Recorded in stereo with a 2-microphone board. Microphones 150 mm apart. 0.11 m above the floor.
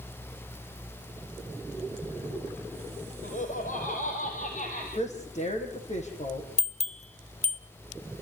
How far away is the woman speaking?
About 4.5 m.